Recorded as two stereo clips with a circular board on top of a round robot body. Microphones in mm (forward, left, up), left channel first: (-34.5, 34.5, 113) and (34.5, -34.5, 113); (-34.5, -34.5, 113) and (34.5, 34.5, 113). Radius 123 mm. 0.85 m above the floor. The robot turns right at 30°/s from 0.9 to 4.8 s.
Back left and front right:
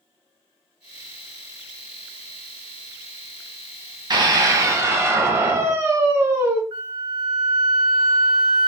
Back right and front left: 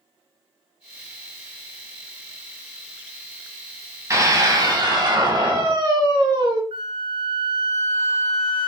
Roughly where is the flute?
Ahead.